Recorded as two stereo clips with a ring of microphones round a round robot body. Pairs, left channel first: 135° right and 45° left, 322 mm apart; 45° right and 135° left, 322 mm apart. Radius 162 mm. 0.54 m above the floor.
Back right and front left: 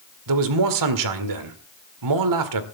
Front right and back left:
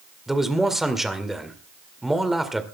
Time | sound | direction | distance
0.3 | a man speaking | 45° left | 2 m